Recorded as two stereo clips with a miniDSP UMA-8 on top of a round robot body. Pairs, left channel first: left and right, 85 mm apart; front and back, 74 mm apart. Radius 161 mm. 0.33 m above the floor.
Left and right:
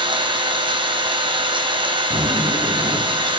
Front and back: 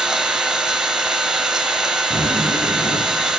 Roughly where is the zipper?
Ahead right.